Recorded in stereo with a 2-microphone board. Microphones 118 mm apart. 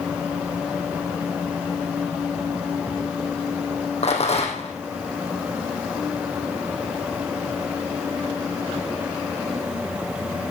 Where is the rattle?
60° left (ahead or behind), 3 m.